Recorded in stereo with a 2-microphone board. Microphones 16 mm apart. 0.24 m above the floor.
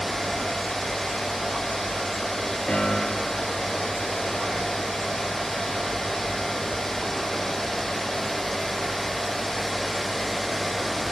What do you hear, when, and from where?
2.7 s a piano: 50° left (ahead or behind), 3 m